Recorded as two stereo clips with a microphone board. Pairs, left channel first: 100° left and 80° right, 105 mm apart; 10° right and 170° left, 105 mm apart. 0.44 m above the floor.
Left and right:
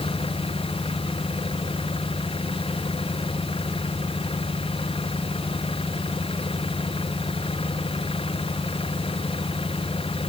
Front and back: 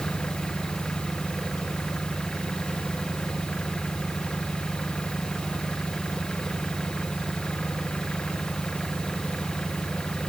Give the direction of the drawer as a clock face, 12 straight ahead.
I don't hear a drawer.